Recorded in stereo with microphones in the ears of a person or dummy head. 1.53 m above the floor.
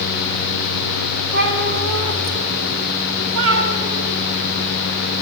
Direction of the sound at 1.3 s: 60° right (ahead or behind).